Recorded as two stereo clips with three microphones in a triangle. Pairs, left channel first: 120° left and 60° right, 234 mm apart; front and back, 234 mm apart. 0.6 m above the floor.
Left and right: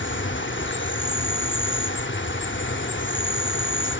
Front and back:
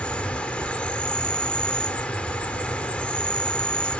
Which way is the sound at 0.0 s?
85° left.